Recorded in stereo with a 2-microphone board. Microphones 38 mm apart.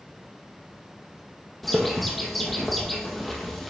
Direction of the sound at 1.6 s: 5° left (ahead or behind).